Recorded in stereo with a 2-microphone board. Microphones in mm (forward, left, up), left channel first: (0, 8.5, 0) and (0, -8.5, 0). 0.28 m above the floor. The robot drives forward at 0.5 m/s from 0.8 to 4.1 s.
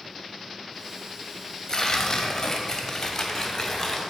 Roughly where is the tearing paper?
Left.